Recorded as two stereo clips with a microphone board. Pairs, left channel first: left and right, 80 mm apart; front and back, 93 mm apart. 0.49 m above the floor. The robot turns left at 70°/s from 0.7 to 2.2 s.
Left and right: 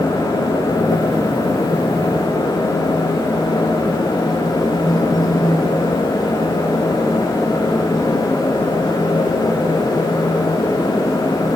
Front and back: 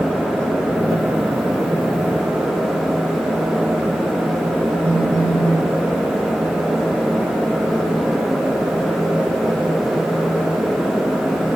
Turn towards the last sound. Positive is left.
turn(degrees=50)